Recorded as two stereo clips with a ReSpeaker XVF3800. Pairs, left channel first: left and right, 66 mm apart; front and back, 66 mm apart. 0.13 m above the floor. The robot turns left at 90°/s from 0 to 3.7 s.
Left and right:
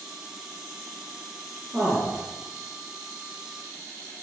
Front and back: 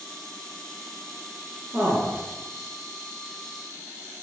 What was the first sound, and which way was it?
A man speaking, 155° right.